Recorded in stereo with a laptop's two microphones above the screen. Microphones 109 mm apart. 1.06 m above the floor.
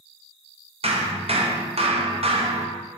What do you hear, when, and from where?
0.8 s hammering: 65° right (ahead or behind), 0.5 m